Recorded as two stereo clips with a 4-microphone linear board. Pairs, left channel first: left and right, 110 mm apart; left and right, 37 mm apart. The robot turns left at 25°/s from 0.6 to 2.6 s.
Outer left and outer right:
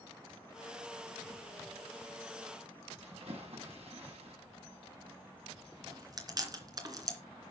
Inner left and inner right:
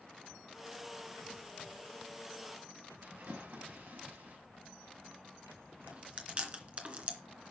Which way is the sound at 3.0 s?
70° right (ahead or behind).